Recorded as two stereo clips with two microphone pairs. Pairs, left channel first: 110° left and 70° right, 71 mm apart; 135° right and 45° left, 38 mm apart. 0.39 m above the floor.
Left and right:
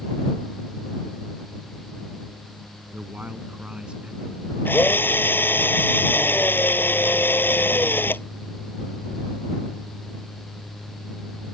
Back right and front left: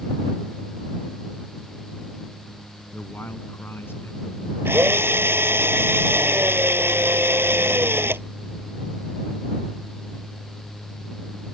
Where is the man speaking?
130° right; by 4.5 s 150° right.